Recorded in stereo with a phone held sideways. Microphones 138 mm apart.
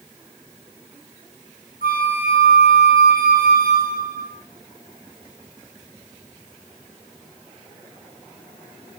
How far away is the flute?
About 2.5 m.